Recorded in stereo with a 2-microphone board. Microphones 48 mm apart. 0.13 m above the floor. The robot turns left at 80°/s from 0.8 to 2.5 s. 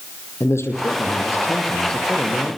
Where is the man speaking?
105° left, 5 m; by 2.6 s 30° right, 5 m.